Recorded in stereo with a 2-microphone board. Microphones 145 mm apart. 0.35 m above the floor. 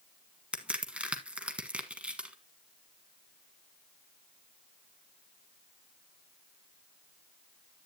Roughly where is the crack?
Centre.